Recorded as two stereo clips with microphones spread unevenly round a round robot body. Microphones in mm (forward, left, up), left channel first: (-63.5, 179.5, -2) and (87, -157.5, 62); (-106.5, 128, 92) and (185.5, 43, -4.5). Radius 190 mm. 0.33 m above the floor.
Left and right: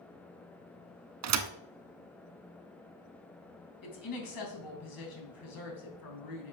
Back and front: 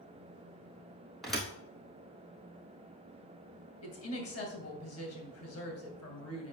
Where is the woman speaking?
115° left, 3 m.